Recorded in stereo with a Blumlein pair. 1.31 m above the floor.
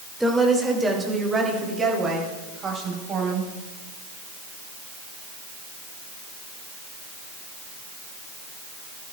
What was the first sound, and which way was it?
A woman speaking, straight ahead.